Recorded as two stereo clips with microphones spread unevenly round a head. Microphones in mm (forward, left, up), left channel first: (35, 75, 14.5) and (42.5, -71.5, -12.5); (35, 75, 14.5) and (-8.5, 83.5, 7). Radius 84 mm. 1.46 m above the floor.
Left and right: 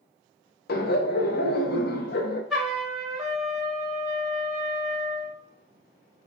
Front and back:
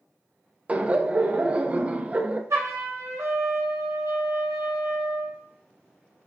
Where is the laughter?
105° left, 0.6 m.